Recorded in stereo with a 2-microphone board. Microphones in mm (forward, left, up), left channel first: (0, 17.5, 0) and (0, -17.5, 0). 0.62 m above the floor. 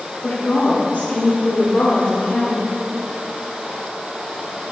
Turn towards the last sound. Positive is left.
turn(degrees=70)  # may be behind; listen again after turning